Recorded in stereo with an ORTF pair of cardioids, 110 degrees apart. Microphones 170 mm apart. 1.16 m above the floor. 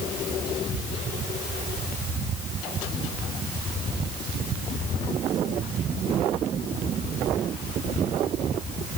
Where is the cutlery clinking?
I don't hear cutlery clinking.